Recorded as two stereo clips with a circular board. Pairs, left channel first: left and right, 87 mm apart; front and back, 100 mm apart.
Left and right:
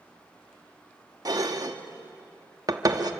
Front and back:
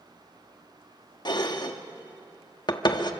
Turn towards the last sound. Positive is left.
turn(degrees=-45)